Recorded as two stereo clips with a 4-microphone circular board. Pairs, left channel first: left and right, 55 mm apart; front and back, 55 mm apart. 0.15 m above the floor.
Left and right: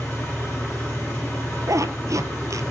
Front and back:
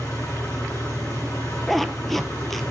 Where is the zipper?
90° right, 0.9 m.